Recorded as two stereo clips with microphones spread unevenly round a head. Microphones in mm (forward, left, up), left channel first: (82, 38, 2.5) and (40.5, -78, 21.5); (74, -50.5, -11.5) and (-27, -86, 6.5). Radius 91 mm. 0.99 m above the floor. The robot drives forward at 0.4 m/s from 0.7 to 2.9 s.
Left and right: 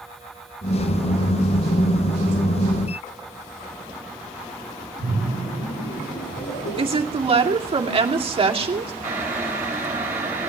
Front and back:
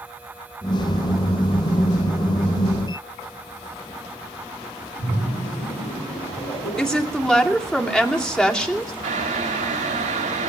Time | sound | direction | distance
5.0 | a splash | 75° left | 6 m
6.8 | a woman speaking | 65° right | 2.5 m
9.0 | boiling | 175° left | 3 m